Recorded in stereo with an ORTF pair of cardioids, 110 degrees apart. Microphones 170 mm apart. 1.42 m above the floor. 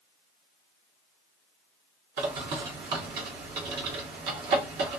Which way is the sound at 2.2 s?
70° right.